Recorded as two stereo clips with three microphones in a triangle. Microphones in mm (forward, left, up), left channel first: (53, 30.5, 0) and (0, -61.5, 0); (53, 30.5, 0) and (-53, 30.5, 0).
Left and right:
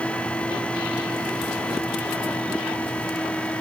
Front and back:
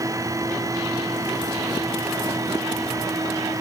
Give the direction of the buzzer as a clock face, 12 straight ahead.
No buzzer in this recording.